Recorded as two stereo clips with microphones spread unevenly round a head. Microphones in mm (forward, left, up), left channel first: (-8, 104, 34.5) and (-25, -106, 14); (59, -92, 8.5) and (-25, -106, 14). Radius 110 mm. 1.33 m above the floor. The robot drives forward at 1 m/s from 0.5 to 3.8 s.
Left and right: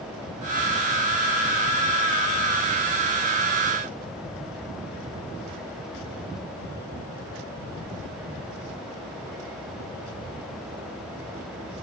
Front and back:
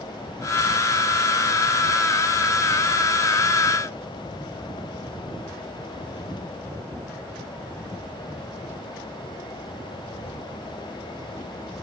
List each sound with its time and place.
Only background noise.